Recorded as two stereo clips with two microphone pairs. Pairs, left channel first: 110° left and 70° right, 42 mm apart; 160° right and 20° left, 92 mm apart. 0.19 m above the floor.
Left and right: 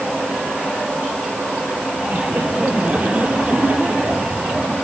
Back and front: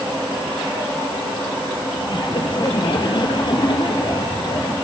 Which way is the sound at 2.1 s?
125° right.